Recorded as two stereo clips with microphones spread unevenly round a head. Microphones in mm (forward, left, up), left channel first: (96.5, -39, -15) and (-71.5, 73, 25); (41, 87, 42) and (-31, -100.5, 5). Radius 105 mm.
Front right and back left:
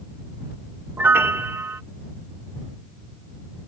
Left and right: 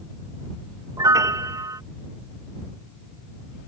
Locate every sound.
1.0 s a piano: 170° left